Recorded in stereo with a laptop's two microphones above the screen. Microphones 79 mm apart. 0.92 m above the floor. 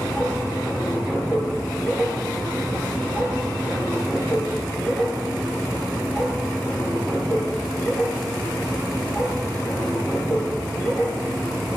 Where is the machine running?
10° left (ahead or behind), 5.5 m.